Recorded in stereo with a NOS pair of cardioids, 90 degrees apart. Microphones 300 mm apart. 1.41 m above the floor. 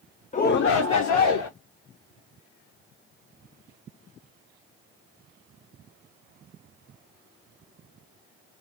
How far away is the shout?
About 0.6 m.